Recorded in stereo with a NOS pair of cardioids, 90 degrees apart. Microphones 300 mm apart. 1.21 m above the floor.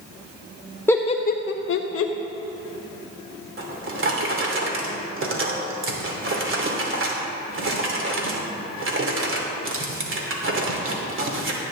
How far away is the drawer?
About 2.5 m.